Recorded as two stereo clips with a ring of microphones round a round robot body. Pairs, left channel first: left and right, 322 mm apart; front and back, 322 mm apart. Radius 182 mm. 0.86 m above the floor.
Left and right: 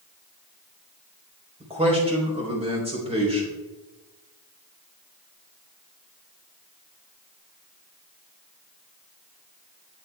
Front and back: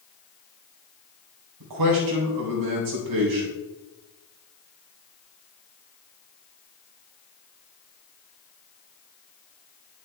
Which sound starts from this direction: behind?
A man speaking, at 1.6 s.